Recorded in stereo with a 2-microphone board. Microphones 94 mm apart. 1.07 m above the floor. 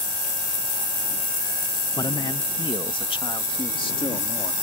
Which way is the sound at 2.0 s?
45° left (ahead or behind).